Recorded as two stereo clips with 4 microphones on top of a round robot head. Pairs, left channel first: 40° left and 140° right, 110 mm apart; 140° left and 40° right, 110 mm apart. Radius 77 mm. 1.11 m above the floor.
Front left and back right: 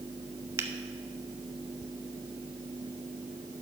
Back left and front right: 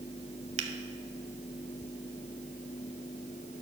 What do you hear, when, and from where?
0.6 s a finger snap: 70° right, 0.8 m